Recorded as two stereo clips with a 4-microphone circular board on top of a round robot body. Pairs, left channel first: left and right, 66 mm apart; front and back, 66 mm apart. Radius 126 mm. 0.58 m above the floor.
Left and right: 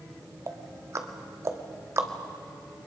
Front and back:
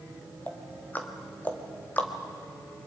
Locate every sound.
0.5 s ticking: 60° right, 1.8 m